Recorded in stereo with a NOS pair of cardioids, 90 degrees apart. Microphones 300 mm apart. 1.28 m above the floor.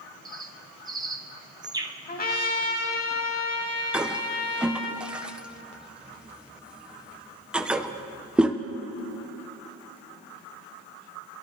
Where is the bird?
15° right, 0.7 m.